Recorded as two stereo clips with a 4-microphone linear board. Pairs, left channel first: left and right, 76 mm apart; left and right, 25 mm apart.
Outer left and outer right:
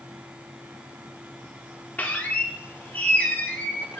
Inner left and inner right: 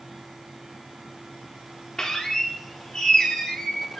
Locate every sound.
2.0 s a squeak: 20° left (ahead or behind), 0.5 m